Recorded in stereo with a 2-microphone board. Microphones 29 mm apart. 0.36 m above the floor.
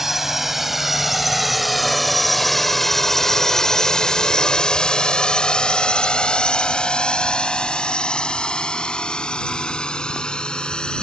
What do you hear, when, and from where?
0.0 s a drone: 10° right (ahead or behind); by 11.0 s 30° left (ahead or behind)